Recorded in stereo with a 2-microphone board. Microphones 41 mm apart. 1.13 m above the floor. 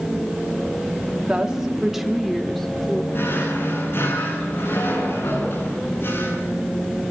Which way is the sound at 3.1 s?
60° left (ahead or behind).